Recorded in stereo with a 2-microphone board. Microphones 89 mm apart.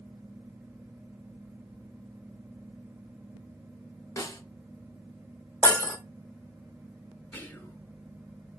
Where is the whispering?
20° left (ahead or behind), 1.2 m.